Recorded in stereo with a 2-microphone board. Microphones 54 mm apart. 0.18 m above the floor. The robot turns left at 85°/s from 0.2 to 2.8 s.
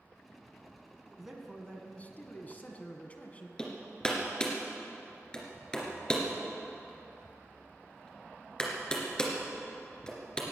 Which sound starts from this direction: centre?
Hammering, at 3.6 s.